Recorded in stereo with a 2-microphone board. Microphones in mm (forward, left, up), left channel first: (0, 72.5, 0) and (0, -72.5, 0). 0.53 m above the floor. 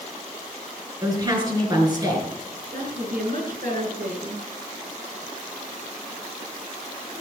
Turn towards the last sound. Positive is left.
turn(degrees=-80)